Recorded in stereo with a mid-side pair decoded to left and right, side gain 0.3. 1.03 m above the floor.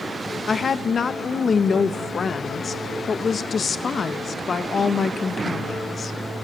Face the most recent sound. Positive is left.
turn(degrees=55)